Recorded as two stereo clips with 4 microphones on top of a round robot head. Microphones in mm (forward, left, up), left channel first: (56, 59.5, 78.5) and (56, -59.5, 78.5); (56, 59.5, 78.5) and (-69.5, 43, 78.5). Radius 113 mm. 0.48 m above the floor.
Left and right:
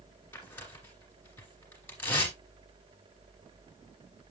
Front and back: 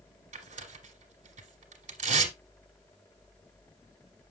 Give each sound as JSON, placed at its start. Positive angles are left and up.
{"t": 0.3, "sound": "tearing paper", "azimuth_deg": 165, "distance_m": 2.5}